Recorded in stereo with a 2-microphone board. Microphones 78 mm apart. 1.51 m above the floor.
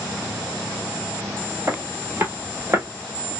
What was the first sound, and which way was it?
Footsteps, 30° right (ahead or behind).